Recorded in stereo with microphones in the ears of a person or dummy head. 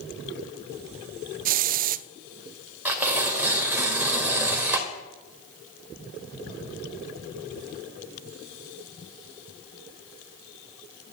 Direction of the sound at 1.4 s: 50° right (ahead or behind).